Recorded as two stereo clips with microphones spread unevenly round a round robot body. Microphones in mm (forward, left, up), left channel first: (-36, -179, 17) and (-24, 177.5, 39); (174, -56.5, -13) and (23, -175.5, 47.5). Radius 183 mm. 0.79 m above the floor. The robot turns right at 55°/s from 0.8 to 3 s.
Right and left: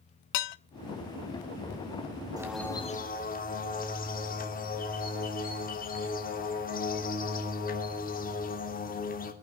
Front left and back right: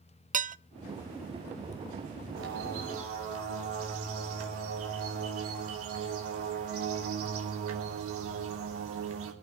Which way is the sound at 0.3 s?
80° right.